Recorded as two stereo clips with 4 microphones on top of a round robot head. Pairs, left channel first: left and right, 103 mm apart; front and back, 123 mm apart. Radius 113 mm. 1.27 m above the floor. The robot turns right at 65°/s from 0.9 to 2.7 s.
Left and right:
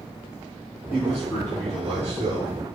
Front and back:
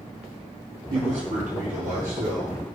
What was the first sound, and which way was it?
A man speaking, 135° left.